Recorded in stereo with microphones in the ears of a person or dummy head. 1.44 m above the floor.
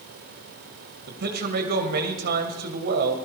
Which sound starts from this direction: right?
A man speaking, at 1.1 s.